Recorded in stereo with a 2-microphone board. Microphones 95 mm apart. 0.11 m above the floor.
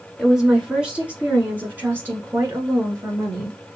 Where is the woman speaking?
5° right (ahead or behind), 1.8 m; by 3.6 s 30° right (ahead or behind), 1.9 m.